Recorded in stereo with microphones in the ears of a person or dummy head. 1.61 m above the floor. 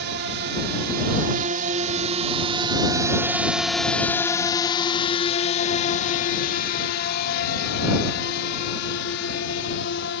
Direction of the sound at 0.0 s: 60° right (ahead or behind).